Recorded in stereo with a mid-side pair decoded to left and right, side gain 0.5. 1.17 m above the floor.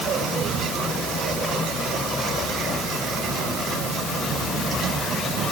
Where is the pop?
No pop in this recording.